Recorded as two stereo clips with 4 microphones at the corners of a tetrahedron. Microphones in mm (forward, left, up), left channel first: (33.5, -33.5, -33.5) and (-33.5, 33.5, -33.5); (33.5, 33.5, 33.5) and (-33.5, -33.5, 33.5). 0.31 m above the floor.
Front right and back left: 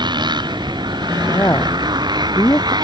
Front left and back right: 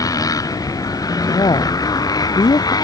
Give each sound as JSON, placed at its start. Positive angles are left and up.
{"t": 0.0, "sound": "a motorcycle", "azimuth_deg": 95}
{"t": 1.3, "sound": "a woman speaking", "azimuth_deg": 10}